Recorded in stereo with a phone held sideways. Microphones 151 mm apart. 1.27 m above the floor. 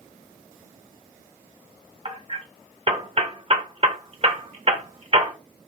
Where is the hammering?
40° right (ahead or behind), 1.2 m.